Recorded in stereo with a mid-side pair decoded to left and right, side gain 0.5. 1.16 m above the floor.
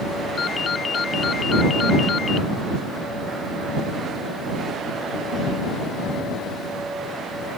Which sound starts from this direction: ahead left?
A ringtone, at 0.4 s.